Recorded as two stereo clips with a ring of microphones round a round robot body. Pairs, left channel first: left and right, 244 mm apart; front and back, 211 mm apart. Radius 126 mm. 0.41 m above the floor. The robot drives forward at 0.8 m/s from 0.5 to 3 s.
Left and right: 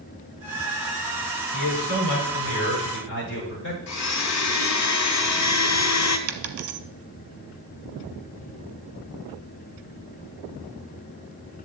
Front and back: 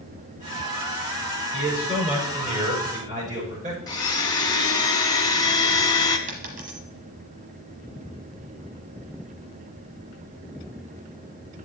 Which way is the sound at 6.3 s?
120° right.